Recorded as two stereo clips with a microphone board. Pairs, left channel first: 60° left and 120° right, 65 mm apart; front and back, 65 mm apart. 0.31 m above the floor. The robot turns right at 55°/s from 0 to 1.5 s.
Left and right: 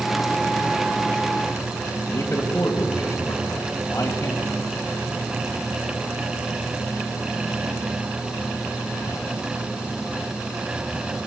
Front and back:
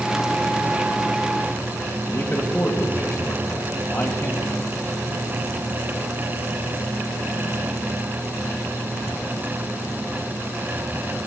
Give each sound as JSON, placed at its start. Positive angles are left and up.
{"t": 2.1, "sound": "a man speaking", "azimuth_deg": 25, "distance_m": 1.8}